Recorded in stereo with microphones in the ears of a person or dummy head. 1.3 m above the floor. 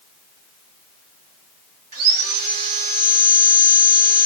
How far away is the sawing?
About 1.1 m.